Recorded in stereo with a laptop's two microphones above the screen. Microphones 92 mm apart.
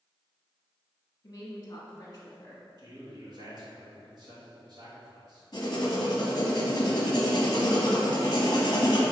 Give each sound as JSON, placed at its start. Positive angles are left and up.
{"t": 1.2, "sound": "a woman speaking", "side_deg": 40, "distance_m": 1.5}
{"t": 2.8, "sound": "a man speaking", "side_deg": -50, "distance_m": 1.6}
{"t": 5.5, "sound": "writing", "side_deg": 45, "distance_m": 1.0}